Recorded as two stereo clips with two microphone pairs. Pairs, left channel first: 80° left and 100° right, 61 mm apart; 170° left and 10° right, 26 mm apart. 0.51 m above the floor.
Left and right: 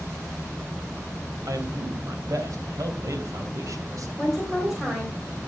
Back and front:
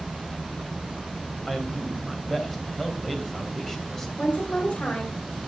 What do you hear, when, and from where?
1.5 s a man speaking: 115° right, 3 m
4.2 s a woman speaking: 175° left, 3 m